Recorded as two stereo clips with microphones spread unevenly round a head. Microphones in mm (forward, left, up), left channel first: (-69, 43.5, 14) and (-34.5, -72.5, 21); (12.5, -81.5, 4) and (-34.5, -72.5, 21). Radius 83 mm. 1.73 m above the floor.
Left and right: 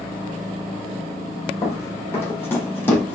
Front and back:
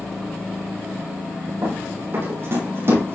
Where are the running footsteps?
170° left, 4 m; by 3.1 s straight behind, 5 m.